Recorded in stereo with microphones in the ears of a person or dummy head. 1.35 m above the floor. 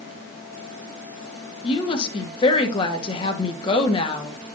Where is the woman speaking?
35° left (ahead or behind), 1.3 m.